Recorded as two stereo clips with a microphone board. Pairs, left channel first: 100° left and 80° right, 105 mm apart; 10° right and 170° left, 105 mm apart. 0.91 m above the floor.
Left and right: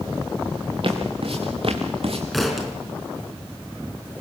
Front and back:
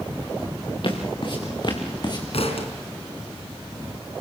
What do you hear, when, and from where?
0.8 s footsteps: 50° right, 3.5 m; by 2.2 s 60° right, 3 m
2.3 s a thud: 10° left, 4 m